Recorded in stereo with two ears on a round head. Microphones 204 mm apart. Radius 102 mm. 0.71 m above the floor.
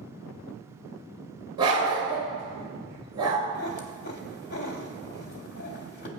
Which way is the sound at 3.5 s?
50° left (ahead or behind).